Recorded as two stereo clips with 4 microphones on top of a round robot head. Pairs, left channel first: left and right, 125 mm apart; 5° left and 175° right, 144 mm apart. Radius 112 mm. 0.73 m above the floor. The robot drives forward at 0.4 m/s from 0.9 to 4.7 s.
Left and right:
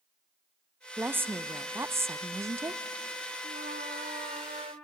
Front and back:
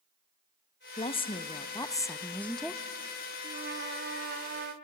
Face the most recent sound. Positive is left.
turn(degrees=-150)